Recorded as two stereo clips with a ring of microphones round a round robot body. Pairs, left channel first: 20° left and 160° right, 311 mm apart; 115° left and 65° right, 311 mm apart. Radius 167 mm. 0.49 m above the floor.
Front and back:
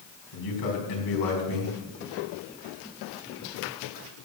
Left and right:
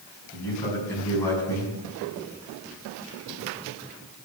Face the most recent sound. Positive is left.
turn(degrees=30)